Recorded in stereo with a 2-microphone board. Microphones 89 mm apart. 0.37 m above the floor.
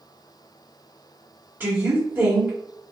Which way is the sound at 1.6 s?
25° right (ahead or behind).